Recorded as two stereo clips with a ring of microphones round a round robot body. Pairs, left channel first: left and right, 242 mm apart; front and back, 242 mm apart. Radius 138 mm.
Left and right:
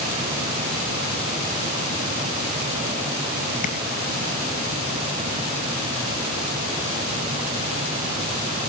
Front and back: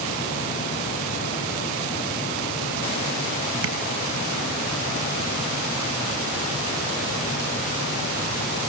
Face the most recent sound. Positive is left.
turn(degrees=150)